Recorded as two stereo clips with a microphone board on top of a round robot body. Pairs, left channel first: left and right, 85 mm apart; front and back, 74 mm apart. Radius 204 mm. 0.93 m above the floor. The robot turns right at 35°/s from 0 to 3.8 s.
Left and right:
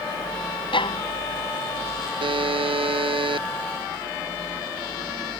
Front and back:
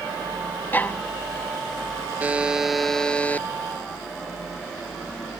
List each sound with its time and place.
0.7 s a violin: 65° left; by 1.0 s 75° left
2.2 s a buzzer: 110° right; by 3.5 s 65° right